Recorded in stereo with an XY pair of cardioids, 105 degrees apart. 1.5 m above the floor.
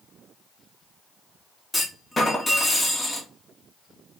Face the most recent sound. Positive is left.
turn(degrees=20)